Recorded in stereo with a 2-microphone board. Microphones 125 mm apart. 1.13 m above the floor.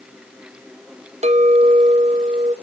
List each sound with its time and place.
1.2 s a clink: 65° right (ahead or behind), 0.8 m